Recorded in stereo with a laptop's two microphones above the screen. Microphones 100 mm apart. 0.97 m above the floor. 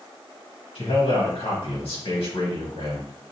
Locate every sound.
0.8 s a man speaking: 75° left (ahead or behind), 1.7 m